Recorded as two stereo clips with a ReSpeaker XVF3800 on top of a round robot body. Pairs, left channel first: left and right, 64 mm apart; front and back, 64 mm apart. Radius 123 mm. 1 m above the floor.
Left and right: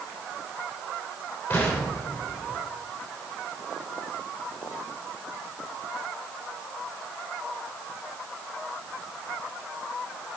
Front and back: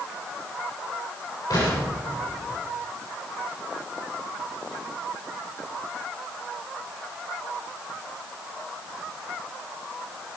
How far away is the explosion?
About 3.5 m.